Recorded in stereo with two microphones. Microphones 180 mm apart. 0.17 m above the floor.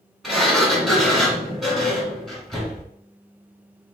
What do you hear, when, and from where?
0.2 s a sliding door: centre (ahead or behind), 1.9 m